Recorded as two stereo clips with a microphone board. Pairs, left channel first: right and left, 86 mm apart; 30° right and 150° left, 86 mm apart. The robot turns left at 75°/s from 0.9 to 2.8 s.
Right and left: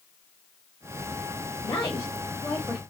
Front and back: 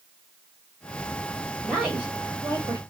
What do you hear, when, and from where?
1.6 s a woman speaking: 110° right, 2.5 m; by 2.8 s 160° left, 2.5 m